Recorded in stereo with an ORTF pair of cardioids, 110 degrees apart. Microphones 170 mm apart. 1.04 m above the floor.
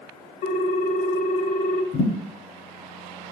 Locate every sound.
0.4 s a ringtone: 60° left, 0.7 m
1.9 s a thud: 65° left, 1.2 m